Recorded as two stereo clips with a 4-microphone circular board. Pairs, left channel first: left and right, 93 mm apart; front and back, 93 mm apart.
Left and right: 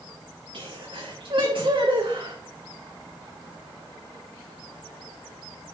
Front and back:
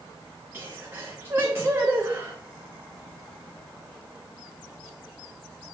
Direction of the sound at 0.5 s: 115° right.